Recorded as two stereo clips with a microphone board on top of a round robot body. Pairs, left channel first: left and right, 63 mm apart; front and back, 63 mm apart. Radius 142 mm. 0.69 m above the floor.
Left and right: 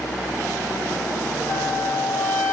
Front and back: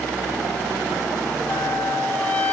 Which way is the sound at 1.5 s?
60° left.